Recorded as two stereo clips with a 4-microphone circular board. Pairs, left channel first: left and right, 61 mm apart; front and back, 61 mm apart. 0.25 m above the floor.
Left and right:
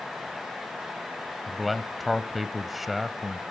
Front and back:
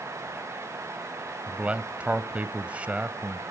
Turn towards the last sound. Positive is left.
turn(degrees=180)